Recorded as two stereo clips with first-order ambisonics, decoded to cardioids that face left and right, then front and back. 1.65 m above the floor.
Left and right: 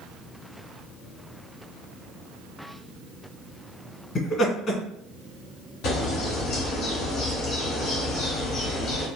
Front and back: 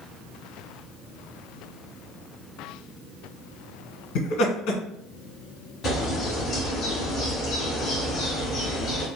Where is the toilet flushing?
I don't hear a toilet flushing.